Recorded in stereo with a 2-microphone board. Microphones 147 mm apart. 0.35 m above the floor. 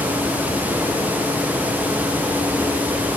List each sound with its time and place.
Only background noise.